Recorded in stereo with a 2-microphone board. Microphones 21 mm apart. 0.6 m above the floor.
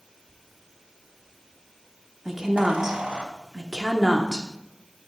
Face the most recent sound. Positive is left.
turn(degrees=-20)  # may be behind; listen again after turning